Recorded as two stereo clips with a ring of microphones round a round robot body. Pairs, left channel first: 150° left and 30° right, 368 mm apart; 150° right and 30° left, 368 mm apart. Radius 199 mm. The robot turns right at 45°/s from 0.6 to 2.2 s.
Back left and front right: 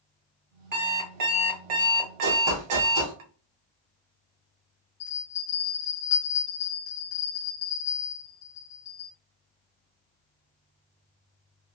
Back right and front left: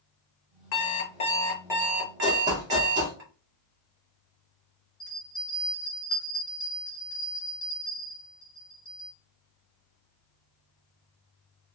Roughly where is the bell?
Behind.